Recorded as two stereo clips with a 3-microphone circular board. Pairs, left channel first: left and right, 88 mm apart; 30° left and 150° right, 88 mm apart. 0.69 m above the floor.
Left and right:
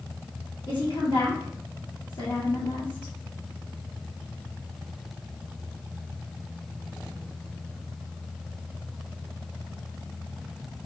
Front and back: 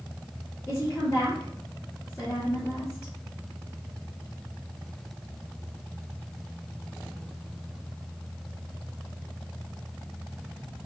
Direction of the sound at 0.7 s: 75° left.